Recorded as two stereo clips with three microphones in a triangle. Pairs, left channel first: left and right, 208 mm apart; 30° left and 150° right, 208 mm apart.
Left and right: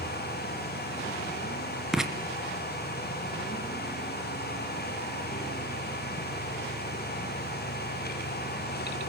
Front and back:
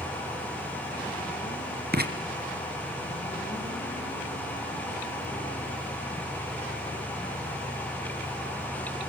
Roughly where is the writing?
Behind.